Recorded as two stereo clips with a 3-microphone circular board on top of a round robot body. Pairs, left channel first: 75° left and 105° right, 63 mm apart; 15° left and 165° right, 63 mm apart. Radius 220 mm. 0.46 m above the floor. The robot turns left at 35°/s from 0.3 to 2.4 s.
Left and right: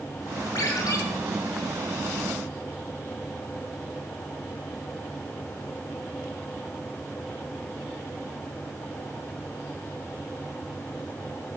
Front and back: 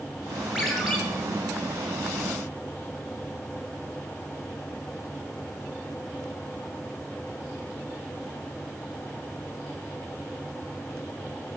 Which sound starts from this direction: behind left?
A ringtone, at 0.6 s.